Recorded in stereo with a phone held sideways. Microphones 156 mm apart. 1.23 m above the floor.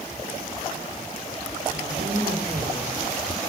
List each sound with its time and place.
1.7 s a woman speaking: 75° right (ahead or behind), 4 m